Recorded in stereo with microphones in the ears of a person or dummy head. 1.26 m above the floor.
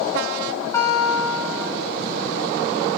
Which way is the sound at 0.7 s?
15° left (ahead or behind).